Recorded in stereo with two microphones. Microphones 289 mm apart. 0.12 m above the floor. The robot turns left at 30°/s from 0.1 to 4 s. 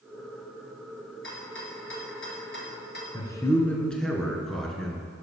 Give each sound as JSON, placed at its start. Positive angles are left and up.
{"t": 1.2, "sound": "a rattle", "side_deg": 40, "distance_m": 2.0}
{"t": 3.1, "sound": "a man speaking", "side_deg": 15, "distance_m": 1.6}